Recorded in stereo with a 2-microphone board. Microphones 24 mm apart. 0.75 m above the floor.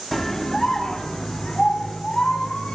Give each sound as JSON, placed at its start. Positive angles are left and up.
{"t": 0.1, "sound": "a scream", "side_deg": 15, "distance_m": 1.5}